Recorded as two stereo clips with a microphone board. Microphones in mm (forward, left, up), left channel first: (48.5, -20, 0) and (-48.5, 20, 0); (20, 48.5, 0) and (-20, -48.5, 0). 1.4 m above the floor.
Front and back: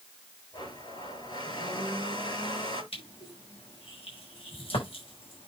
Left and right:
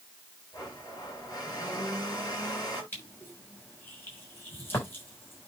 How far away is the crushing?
About 6.5 m.